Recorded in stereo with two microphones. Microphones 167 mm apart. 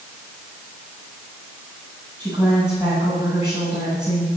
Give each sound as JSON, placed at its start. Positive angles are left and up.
{"t": 2.2, "sound": "a woman speaking", "side_deg": -5, "distance_m": 8.0}